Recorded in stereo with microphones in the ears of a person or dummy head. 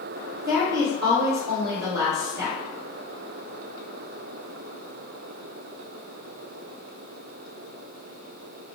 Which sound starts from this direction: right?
A woman speaking, at 0.4 s.